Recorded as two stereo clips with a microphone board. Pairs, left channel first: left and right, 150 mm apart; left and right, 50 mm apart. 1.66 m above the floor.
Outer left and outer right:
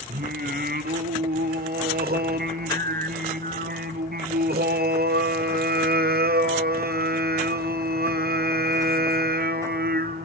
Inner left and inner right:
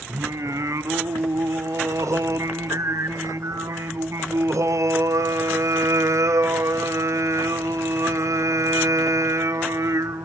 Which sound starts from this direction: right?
Singing, at 0.1 s.